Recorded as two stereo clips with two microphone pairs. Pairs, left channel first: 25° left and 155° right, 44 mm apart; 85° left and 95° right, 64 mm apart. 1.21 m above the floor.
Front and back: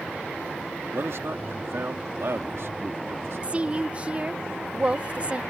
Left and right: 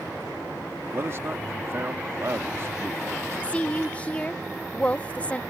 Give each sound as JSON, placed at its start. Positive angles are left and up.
{"t": 0.9, "sound": "a man speaking", "azimuth_deg": -140}
{"t": 3.4, "sound": "a woman speaking", "azimuth_deg": 150}